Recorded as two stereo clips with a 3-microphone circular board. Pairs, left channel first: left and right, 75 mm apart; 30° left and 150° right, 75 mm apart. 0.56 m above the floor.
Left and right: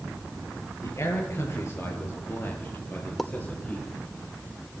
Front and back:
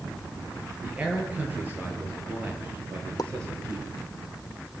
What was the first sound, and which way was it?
A man speaking, 135° left.